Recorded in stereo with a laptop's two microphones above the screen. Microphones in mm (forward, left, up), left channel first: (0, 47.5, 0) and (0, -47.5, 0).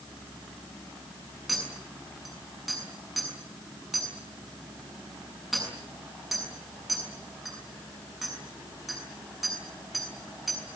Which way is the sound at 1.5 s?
Centre (ahead or behind).